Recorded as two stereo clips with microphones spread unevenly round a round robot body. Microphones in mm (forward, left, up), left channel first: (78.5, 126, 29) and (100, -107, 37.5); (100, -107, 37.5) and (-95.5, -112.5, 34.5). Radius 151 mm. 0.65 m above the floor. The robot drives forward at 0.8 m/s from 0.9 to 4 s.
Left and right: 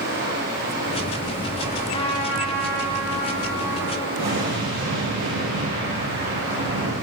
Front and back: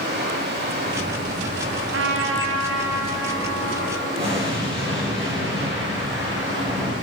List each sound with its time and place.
0.0 s running water: 145° right, 4 m; by 7.0 s 160° right, 6 m
1.9 s a trumpet: 165° left, 0.8 m; by 4.1 s 175° left, 2.5 m
4.2 s an explosion: 115° right, 6 m